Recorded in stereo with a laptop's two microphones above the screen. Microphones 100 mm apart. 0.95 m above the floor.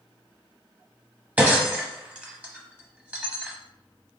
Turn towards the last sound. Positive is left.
turn(degrees=-15)  # may be behind; listen again after turning